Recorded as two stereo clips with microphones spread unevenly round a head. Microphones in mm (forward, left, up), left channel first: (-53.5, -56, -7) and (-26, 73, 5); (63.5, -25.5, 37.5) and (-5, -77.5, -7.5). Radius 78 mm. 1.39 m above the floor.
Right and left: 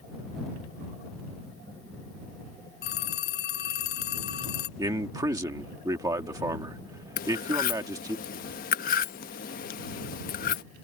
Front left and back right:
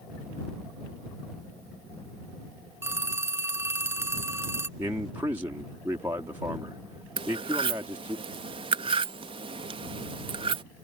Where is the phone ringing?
80° right.